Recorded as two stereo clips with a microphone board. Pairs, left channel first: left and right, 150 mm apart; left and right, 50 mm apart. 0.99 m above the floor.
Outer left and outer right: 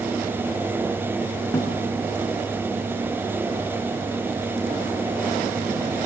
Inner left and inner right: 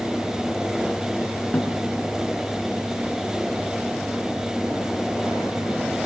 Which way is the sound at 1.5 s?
20° left (ahead or behind).